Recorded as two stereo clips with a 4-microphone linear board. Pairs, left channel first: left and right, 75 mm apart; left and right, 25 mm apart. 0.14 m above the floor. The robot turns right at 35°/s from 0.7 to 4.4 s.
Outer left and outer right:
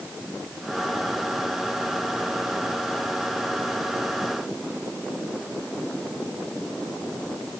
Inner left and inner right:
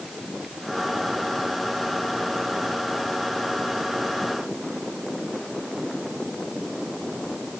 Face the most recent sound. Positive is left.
No sound to turn to.